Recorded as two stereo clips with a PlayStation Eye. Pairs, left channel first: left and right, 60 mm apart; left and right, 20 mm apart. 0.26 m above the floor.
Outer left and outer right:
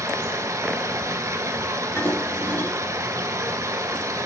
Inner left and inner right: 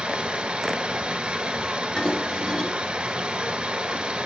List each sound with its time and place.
0.0 s running water: 75° right (ahead or behind), 1.1 m
2.0 s dishes clattering: 50° left (ahead or behind), 2.5 m